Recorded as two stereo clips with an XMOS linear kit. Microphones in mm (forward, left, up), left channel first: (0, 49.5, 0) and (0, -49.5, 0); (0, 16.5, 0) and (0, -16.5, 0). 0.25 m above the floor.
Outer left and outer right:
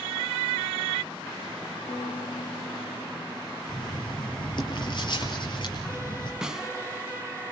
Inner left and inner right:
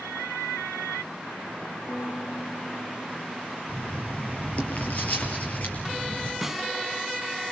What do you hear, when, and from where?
1.9 s a piano: 80° left, 7 m
3.7 s writing: 50° left (ahead or behind), 6 m
6.4 s a snare drum: 5° right (ahead or behind), 1.1 m